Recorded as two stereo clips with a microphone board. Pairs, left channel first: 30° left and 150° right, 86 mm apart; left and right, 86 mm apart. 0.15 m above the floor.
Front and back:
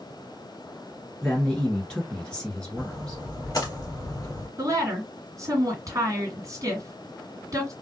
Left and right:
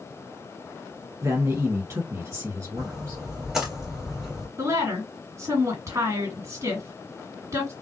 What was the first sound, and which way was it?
A man speaking, 45° right.